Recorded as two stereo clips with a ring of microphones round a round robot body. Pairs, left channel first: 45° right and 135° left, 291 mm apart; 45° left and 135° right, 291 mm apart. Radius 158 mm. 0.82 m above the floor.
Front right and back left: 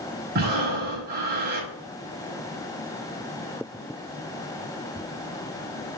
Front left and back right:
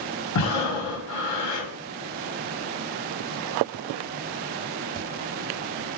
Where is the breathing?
75° left, 1.4 m.